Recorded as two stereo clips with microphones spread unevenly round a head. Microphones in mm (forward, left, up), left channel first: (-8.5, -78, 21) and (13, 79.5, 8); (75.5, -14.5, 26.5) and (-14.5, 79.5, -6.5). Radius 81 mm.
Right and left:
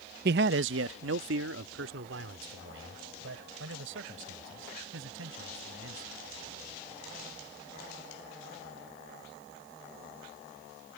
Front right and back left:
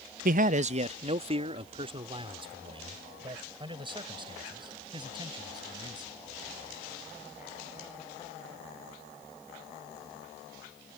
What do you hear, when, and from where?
0.2 s a man speaking: 115° left; by 6.2 s 75° left